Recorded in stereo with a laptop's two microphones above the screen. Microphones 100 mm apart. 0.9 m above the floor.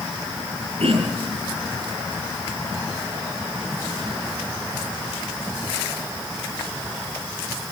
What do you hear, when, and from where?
0.8 s throat clearing: 75° right (ahead or behind), 8 m